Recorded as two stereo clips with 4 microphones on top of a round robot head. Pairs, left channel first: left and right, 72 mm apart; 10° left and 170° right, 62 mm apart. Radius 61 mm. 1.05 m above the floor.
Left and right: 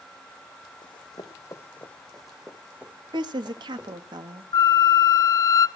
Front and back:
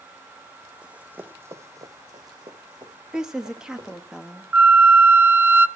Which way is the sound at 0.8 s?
120° left.